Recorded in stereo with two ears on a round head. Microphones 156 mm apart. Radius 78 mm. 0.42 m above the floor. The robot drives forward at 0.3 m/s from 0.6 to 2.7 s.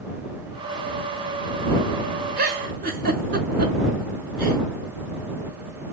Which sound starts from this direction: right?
A giggle, at 2.4 s.